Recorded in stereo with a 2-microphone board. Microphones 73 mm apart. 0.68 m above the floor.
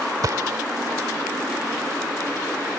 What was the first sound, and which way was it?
A gunshot, 55° right (ahead or behind).